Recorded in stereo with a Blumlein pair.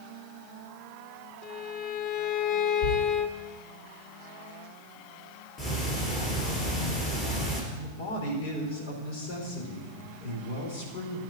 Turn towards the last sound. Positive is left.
turn(degrees=50)